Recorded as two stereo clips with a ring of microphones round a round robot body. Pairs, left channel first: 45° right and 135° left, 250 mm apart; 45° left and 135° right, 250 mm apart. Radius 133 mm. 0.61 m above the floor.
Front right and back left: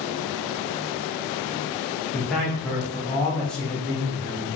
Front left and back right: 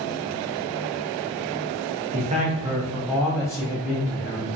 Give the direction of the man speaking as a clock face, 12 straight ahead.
4 o'clock.